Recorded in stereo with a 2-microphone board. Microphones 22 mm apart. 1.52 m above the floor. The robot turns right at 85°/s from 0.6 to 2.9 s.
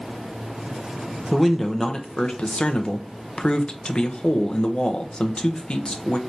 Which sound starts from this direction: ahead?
A man speaking, at 1.3 s.